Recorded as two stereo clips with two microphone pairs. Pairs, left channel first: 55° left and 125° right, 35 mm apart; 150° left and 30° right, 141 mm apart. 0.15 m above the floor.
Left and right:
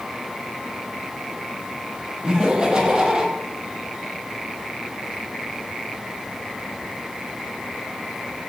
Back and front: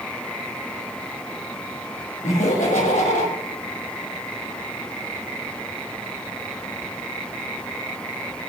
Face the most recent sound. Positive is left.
turn(degrees=170)